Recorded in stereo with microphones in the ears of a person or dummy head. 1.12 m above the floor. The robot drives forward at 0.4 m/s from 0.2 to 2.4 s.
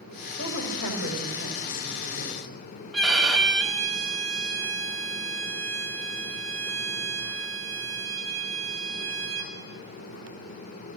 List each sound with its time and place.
0.4 s a woman speaking: 80° left, 6 m; by 2.5 s 75° left (ahead or behind), 6.5 m
2.9 s a violin: centre (ahead or behind), 2 m